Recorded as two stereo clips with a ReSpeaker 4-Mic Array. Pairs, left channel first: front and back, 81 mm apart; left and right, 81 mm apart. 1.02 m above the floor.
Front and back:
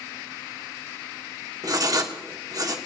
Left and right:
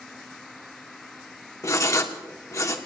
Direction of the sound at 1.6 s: 140° left.